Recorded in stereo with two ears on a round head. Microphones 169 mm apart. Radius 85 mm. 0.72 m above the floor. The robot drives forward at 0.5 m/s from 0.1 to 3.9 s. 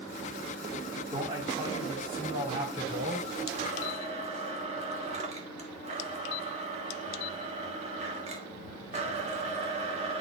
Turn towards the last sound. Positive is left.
turn(degrees=-35)  # may be behind; listen again after turning